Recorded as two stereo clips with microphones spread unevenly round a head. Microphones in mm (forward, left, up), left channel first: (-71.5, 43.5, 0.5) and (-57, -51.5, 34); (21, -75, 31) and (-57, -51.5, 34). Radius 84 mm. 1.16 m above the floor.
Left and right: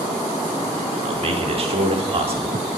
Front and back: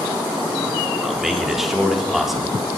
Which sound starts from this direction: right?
A man speaking, at 1.0 s.